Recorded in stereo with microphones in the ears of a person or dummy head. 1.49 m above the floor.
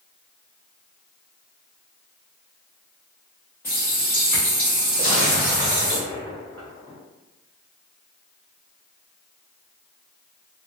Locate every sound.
3.6 s a running tap: 10° left (ahead or behind), 0.7 m
5.0 s an explosion: 20° left (ahead or behind), 1.0 m